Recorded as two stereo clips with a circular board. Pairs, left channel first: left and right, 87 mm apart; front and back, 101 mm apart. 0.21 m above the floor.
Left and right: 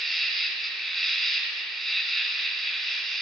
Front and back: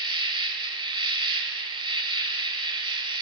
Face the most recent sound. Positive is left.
turn(degrees=175)